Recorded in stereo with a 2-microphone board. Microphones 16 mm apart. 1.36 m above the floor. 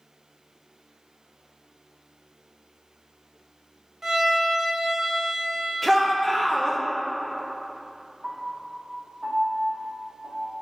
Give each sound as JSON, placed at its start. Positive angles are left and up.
{"t": 4.0, "sound": "a violin", "side_deg": -25, "distance_m": 1.0}
{"t": 5.8, "sound": "a shout", "side_deg": 15, "distance_m": 1.1}
{"t": 8.2, "sound": "a piano", "side_deg": -55, "distance_m": 1.8}